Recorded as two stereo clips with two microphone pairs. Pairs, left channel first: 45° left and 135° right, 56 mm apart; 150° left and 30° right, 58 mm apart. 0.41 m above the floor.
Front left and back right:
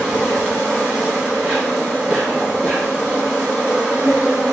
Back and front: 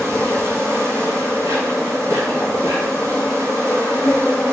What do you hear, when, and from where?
0.0 s an insect: 65° right, 2.0 m